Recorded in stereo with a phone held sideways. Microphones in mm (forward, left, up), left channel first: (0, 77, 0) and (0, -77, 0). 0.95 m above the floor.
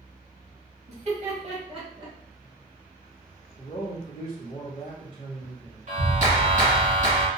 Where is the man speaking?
35° left (ahead or behind), 0.8 m.